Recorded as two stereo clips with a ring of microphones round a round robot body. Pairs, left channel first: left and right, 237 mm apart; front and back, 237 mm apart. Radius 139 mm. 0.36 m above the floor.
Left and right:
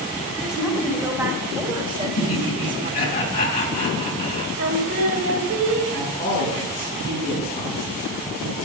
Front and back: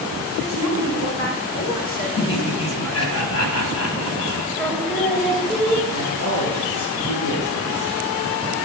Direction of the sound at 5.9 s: 15° left.